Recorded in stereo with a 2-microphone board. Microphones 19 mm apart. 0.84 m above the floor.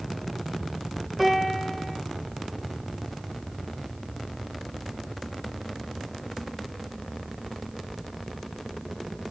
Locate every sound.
1.2 s a piano: 5° right (ahead or behind), 0.9 m